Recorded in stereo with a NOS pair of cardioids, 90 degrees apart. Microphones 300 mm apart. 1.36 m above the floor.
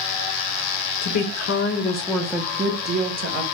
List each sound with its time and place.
1.0 s a woman speaking: 70° left, 0.8 m; by 3.4 s 45° right, 1.0 m